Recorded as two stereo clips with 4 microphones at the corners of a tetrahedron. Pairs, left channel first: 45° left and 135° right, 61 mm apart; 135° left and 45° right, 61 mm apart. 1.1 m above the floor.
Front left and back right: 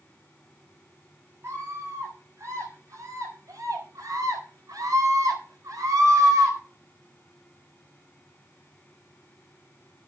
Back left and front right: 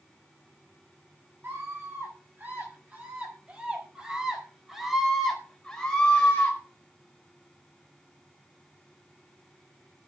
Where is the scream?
95° right, 6.5 m; by 6.6 s 160° right, 4 m.